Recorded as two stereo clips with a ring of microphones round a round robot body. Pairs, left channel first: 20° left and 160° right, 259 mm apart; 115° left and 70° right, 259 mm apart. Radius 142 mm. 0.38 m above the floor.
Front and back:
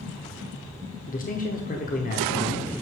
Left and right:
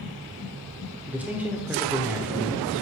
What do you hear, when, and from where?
1.1 s a man speaking: 10° left, 0.9 m